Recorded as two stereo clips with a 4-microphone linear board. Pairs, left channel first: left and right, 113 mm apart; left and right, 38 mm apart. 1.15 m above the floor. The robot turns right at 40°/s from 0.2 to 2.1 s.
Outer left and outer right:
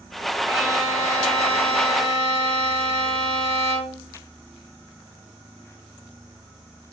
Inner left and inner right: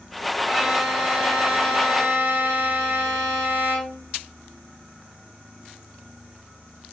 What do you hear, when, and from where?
0.4 s a violin: 155° right, 1.0 m; by 4.1 s 90° right, 1.0 m